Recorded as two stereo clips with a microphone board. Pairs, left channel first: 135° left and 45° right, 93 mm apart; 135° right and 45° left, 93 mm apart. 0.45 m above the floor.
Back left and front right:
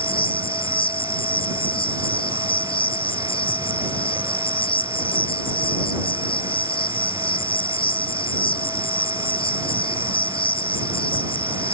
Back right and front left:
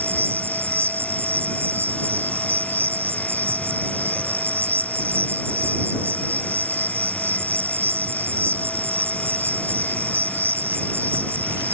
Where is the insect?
110° left.